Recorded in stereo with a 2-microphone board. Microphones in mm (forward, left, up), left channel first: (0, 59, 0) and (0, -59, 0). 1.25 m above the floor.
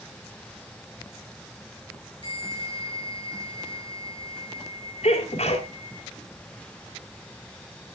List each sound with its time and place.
2.2 s a bell: 40° left (ahead or behind), 7 m
5.0 s a sneeze: 65° left (ahead or behind), 3.5 m